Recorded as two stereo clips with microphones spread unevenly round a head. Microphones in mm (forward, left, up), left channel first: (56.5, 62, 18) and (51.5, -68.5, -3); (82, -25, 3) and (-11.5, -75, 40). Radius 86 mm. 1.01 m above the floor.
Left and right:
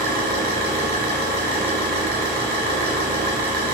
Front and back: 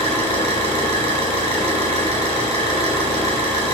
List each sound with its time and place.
0.0 s an engine running: 135° right, 3 m